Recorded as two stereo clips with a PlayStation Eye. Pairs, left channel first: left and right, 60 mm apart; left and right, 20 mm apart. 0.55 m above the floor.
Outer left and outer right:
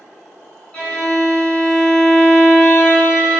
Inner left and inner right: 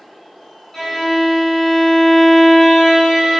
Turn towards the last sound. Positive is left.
turn(degrees=15)  # may be behind; listen again after turning